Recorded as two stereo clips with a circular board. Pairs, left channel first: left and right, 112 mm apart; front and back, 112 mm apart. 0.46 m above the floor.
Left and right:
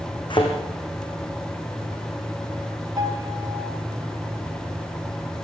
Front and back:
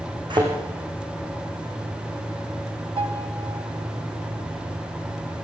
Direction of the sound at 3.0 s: 145° right.